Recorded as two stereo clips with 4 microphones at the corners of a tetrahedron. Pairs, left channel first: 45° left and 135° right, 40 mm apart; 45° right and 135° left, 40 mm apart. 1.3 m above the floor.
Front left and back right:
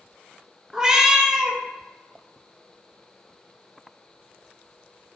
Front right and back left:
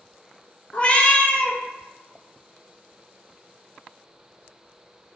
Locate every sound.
0.7 s a cat meowing: 75° right, 0.5 m